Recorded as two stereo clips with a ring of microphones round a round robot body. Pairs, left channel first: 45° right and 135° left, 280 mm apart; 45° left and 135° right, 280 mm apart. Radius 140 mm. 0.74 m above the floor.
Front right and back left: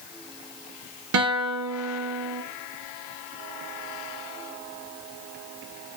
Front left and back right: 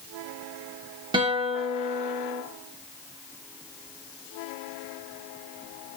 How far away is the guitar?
About 1.5 m.